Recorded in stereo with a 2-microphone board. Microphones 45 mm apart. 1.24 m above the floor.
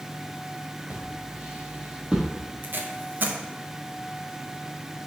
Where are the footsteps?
35° right (ahead or behind), 2 m; by 2.3 s 20° right (ahead or behind), 1.9 m.